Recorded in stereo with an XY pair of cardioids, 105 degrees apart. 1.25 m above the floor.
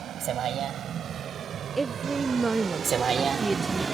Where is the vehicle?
65° right; by 4.0 s 25° right.